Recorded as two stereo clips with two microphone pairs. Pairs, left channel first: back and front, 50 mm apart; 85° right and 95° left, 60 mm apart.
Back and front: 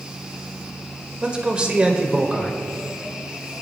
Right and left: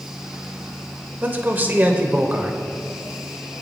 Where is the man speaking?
60° left, 1.3 m.